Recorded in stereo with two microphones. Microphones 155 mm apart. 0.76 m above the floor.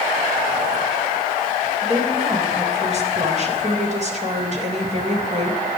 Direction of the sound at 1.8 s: 45° right (ahead or behind).